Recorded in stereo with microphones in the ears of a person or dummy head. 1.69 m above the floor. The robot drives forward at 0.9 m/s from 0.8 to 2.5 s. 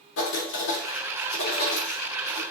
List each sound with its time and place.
0.2 s writing: 75° left (ahead or behind), 2.5 m; by 2.4 s 55° left (ahead or behind), 3 m